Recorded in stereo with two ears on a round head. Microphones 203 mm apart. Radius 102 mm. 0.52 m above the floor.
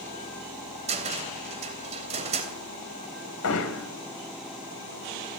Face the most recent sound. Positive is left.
turn(degrees=75)  # may be behind; listen again after turning